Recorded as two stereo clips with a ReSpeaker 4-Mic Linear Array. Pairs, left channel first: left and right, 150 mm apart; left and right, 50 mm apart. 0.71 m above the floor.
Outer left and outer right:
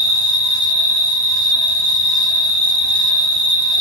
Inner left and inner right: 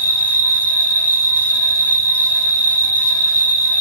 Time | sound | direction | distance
0.0 | an insect | 10° left (ahead or behind) | 1.2 m